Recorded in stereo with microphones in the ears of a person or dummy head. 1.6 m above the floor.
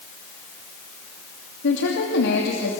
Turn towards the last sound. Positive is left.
turn(degrees=80)